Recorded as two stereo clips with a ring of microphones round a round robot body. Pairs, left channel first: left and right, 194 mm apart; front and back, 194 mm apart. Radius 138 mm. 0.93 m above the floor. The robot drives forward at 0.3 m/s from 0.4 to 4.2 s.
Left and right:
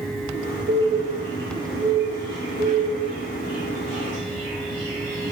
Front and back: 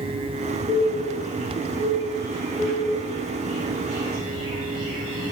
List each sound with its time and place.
0.7 s a bird: 110° right, 0.7 m; by 5.3 s 155° right, 1.4 m